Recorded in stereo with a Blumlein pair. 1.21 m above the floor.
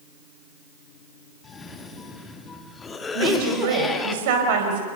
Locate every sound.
1.4 s a cough: 15° left, 2.5 m
3.1 s a woman speaking: 50° right, 5 m